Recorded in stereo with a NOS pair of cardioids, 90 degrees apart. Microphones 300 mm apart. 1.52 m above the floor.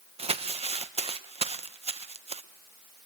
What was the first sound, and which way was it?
Crumpling, 20° right.